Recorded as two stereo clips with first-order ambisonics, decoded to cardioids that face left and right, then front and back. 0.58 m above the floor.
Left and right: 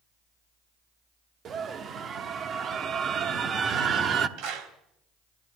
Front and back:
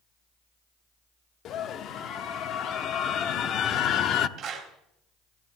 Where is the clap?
120° right, 3.5 m.